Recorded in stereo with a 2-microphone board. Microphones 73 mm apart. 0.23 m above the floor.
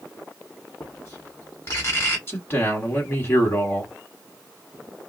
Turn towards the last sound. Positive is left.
turn(degrees=35)  # may be behind; listen again after turning